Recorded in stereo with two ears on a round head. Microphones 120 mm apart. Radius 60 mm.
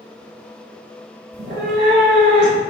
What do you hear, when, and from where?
1.3 s a cat meowing: 85° right, 1.1 m; by 2.6 s 50° right (ahead or behind), 1.5 m